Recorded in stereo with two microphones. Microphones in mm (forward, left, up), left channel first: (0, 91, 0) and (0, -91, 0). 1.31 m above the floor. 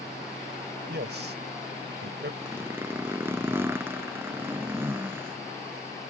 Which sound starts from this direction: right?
A man speaking, at 0.9 s.